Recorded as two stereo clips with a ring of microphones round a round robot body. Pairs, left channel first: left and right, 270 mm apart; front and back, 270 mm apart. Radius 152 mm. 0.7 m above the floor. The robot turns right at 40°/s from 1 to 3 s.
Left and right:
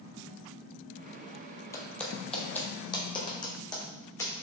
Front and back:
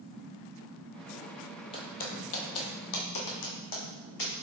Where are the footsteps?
30° left, 0.7 m; by 4.3 s 15° left, 2 m.